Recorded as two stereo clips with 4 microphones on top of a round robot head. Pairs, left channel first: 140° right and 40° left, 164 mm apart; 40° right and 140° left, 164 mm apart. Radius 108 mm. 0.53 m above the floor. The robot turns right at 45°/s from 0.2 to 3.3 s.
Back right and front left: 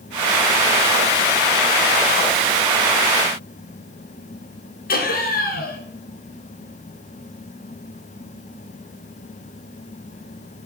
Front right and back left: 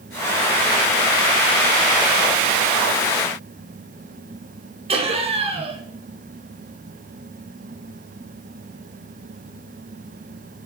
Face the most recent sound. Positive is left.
turn(degrees=-165)